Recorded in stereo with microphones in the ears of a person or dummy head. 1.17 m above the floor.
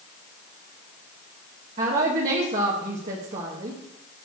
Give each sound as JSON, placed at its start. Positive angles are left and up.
{"t": 1.8, "sound": "a woman speaking", "side_deg": -50, "distance_m": 1.7}